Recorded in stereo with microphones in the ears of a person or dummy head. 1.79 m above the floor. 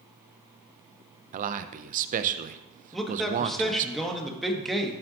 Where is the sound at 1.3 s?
40° right (ahead or behind), 0.6 m.